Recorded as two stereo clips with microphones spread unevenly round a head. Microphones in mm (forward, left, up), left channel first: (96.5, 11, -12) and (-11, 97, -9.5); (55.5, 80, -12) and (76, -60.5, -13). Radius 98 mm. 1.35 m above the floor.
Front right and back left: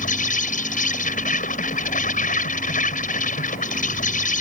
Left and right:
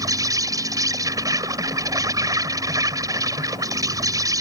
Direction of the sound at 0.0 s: 15° right.